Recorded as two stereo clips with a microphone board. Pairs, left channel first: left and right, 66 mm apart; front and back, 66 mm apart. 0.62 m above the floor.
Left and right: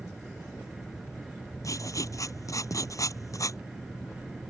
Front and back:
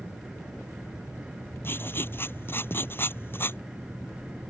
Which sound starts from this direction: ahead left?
Writing, at 1.6 s.